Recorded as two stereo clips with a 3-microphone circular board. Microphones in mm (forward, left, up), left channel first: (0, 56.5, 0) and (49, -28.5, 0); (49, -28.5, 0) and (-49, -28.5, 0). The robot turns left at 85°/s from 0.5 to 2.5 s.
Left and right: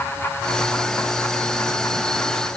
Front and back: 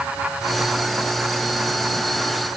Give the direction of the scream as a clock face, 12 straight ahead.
I don't hear a scream.